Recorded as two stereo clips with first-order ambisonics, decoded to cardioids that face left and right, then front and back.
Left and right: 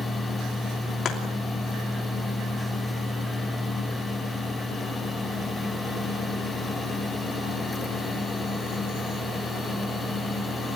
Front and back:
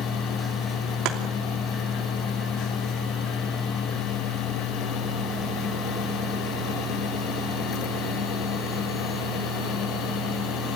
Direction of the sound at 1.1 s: 150° left.